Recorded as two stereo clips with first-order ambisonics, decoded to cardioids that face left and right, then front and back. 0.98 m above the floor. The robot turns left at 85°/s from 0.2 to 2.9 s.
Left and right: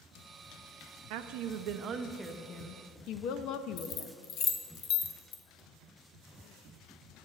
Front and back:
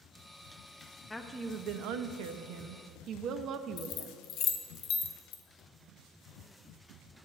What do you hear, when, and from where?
1.1 s a woman speaking: 80° right, 0.6 m; by 4.1 s 130° left, 0.6 m
3.8 s keys jangling: 45° left, 0.8 m